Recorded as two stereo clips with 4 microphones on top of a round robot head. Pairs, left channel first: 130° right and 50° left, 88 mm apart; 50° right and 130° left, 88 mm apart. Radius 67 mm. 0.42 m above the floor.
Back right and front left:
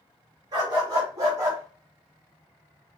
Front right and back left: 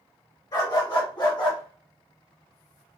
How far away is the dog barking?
About 2.5 m.